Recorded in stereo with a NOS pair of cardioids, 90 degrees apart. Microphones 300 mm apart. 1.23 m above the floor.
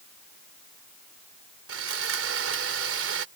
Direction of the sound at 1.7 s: 50° right.